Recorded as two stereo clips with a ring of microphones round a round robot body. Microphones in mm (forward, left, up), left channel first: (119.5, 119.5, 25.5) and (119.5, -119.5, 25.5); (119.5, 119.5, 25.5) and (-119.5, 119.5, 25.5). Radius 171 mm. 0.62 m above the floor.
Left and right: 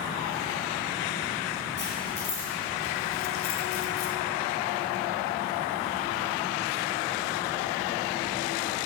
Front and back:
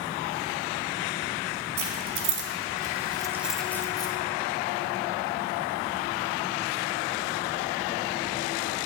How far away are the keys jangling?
About 1.1 m.